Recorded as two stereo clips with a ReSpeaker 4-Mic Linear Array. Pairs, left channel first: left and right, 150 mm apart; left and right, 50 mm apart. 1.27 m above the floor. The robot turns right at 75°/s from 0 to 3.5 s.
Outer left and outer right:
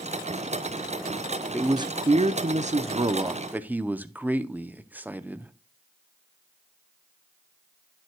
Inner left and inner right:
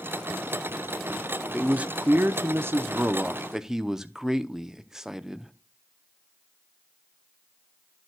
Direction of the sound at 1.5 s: 160° right.